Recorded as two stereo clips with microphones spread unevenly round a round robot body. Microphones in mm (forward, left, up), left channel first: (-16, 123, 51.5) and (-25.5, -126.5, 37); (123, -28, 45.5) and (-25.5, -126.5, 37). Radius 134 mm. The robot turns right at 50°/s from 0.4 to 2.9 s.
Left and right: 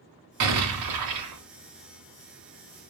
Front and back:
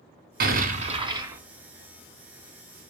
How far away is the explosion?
About 1.2 m.